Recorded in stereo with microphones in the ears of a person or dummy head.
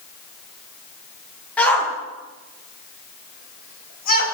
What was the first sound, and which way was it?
A shout, 10° left (ahead or behind).